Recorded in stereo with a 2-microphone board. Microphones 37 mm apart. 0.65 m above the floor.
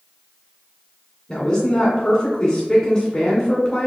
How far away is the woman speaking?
About 1.7 m.